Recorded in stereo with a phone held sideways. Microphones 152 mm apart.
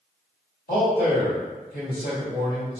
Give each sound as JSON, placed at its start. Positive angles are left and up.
{"t": 0.7, "sound": "a man speaking", "side_deg": 80, "distance_m": 1.7}